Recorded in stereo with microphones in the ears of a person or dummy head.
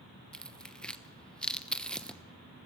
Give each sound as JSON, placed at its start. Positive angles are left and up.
{"t": 0.3, "sound": "tearing paper", "side_deg": 5, "distance_m": 1.0}